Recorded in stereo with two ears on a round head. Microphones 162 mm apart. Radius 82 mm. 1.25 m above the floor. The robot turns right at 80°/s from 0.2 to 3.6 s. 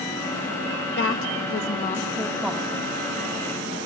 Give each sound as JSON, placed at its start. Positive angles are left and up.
{"t": 1.0, "sound": "a woman speaking", "azimuth_deg": 65, "distance_m": 1.7}